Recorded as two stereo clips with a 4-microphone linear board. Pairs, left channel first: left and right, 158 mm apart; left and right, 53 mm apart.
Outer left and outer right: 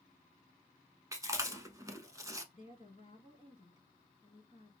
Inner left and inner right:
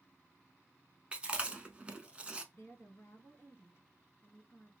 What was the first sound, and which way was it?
Chewing, 20° right (ahead or behind).